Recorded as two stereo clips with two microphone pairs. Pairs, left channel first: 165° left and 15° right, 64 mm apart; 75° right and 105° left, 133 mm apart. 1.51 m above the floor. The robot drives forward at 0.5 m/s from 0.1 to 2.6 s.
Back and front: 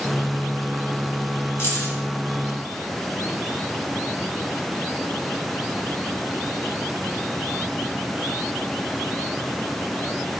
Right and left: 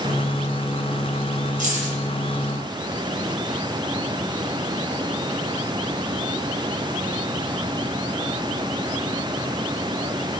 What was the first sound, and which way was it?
Keys jangling, 120° left.